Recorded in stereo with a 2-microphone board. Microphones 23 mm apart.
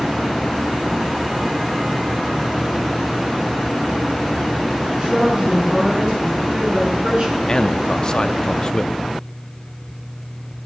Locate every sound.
5.0 s a woman speaking: 55° right (ahead or behind), 7 m
7.5 s a man speaking: 35° left (ahead or behind), 0.6 m